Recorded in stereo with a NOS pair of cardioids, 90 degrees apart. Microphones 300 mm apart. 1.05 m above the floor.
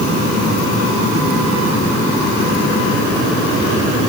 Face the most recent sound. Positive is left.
No sound to turn to.